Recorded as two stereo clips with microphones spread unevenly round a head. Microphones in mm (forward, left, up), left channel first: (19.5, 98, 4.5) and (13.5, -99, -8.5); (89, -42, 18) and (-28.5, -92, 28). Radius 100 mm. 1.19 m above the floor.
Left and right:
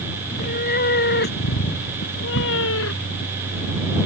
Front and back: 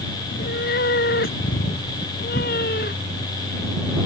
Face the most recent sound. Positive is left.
turn(degrees=70)